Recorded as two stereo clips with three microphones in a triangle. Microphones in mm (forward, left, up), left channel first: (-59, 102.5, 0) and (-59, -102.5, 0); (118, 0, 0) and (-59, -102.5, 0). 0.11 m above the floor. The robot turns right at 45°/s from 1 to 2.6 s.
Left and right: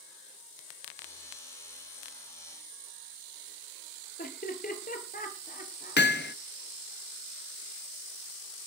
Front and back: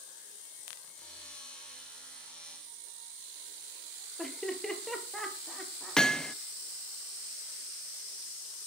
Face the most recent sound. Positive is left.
turn(degrees=115)